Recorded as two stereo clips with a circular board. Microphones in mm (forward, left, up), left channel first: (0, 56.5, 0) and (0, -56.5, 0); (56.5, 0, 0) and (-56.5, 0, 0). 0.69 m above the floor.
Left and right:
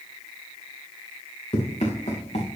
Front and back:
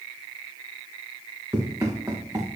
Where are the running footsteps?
120° left, 3.5 m.